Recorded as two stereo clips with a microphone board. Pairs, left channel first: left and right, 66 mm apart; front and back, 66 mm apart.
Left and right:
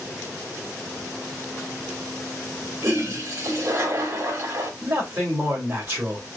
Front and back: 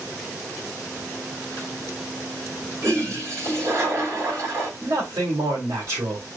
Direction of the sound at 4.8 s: 140° right.